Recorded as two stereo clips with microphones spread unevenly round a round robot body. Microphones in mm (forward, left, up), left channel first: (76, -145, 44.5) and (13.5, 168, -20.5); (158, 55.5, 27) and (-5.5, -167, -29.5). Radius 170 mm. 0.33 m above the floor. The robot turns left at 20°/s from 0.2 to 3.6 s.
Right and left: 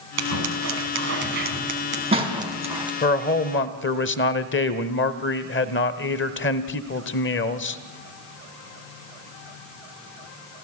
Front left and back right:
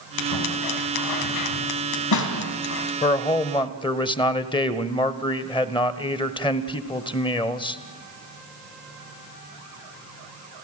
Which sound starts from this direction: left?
Scissors, at 0.2 s.